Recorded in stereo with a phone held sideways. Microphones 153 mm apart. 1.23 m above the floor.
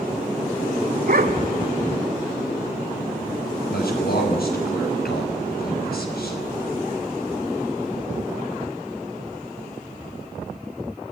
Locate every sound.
1.1 s a dog barking: 70° right (ahead or behind), 1.7 m
3.7 s a man speaking: 80° left, 6.5 m